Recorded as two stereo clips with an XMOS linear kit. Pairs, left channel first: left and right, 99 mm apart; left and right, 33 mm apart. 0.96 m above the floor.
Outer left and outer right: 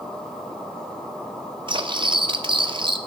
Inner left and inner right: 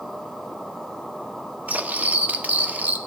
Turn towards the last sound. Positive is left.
turn(degrees=-55)  # may be behind; listen again after turning